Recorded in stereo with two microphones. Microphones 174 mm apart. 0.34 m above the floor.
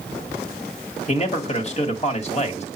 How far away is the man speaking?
About 1.8 m.